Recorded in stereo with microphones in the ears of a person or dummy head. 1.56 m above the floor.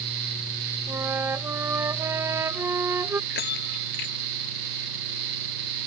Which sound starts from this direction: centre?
A flute, at 0.9 s.